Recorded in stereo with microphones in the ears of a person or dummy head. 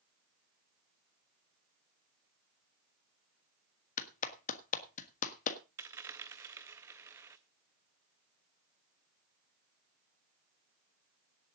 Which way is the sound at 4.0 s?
45° left (ahead or behind).